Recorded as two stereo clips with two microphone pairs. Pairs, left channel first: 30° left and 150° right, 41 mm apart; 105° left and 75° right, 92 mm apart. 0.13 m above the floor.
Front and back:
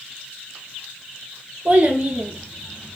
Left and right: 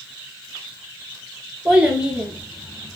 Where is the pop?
I don't hear a pop.